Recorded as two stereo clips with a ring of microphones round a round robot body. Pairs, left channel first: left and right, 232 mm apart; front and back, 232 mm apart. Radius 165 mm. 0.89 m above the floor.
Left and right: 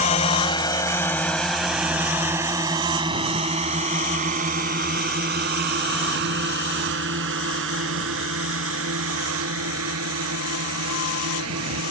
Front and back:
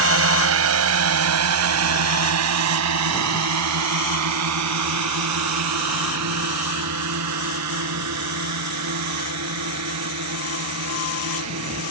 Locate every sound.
0.0 s a drone: 160° left; by 11.9 s 135° right